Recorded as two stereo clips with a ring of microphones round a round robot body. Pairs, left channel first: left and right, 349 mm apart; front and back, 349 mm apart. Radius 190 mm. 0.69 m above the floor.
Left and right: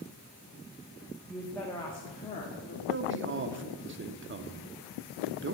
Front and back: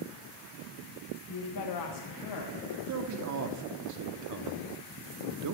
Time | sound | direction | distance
1.3 | a woman speaking | straight ahead | 0.9 m
2.9 | a man speaking | 145° right | 1.2 m